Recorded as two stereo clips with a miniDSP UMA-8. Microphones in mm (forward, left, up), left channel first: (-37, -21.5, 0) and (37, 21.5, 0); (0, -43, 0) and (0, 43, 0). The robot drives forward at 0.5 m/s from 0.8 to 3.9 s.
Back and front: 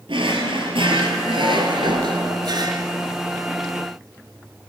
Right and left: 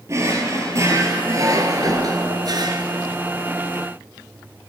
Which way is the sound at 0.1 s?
35° left.